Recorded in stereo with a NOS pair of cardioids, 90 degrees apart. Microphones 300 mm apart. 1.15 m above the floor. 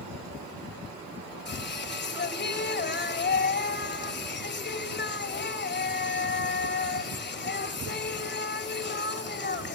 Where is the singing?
35° left, 3.5 m.